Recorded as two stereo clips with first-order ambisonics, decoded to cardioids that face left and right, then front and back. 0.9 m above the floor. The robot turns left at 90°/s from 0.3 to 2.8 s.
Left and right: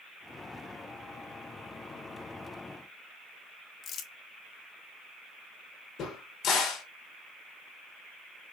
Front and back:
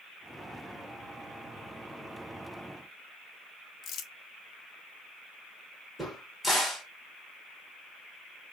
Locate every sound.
3.8 s crumpling: 45° left, 0.5 m
6.0 s a crack: 90° left, 1.1 m